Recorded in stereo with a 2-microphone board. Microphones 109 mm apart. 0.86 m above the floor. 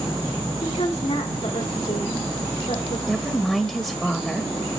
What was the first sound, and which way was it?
A woman speaking, 80° left.